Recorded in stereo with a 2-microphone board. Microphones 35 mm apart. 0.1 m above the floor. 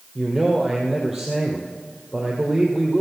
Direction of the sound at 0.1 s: 10° right (ahead or behind).